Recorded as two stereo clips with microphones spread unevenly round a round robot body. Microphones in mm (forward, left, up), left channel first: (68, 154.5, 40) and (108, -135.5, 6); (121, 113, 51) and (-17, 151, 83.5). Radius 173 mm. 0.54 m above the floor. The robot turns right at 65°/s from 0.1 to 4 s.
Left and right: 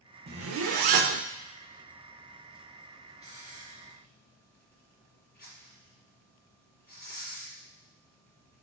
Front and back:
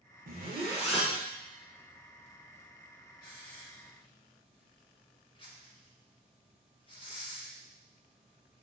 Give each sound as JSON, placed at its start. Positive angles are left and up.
{"t": 0.3, "sound": "a zipper", "azimuth_deg": -145, "distance_m": 0.5}
{"t": 3.2, "sound": "a hiss", "azimuth_deg": -15, "distance_m": 3.5}